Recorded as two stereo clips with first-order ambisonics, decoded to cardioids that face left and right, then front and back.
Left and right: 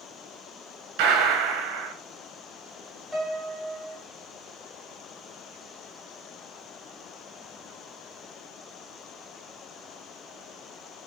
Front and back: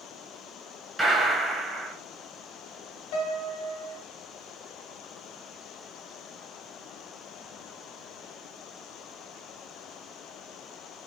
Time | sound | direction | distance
1.0 | a gunshot | 105° right | 0.8 m
3.1 | a piano | 5° left | 1.1 m